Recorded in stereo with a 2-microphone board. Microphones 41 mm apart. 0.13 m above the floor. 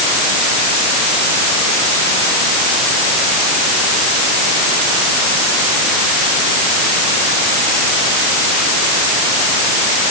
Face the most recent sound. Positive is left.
No sound to turn to.